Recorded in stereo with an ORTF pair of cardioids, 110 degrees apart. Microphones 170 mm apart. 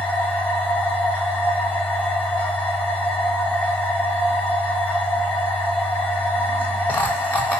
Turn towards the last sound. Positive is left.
turn(degrees=10)